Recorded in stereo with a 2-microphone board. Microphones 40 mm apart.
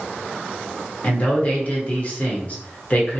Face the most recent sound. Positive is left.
turn(degrees=35)  # may be behind; listen again after turning